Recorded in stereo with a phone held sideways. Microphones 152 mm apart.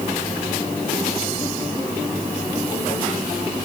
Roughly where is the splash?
I don't hear a splash.